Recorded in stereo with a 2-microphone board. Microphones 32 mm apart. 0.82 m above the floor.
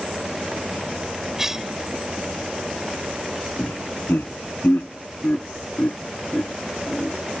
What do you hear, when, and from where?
1.4 s a cough: 15° right (ahead or behind)
3.6 s laughter: 80° left